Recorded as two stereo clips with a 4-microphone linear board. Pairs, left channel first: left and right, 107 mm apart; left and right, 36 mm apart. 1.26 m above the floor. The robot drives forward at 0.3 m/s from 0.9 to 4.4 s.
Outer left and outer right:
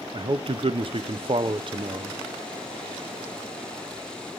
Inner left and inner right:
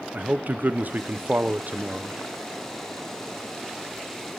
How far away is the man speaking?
About 0.5 m.